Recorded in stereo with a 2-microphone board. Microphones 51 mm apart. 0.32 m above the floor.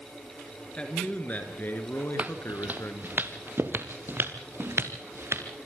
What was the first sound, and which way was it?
A man speaking, 25° left (ahead or behind).